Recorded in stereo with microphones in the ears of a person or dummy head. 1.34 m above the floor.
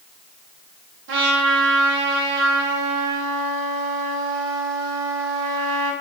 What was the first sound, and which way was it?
A trumpet, 70° right (ahead or behind).